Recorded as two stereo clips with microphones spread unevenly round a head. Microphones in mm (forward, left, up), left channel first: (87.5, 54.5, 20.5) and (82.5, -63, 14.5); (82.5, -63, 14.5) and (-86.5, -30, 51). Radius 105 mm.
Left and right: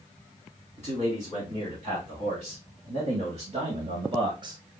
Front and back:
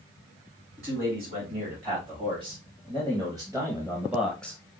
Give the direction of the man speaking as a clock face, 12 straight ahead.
4 o'clock.